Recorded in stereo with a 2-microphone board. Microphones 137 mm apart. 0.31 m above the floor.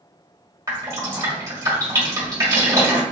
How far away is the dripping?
About 1.3 m.